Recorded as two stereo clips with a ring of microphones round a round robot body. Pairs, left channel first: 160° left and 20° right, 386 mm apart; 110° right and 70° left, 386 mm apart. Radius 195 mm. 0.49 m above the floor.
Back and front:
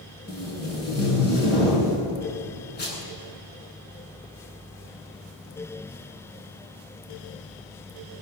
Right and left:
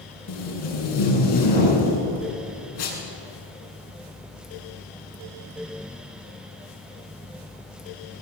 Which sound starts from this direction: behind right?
Tape being pulled, at 0.3 s.